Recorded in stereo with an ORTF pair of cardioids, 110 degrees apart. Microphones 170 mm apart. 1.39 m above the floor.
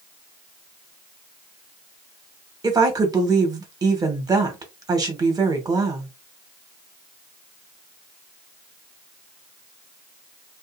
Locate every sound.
2.6 s a woman speaking: 25° right, 1.3 m